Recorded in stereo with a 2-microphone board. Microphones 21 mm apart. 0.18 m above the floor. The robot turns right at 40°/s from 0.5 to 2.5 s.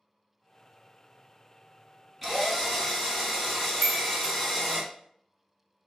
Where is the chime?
10° right (ahead or behind), 1.7 m.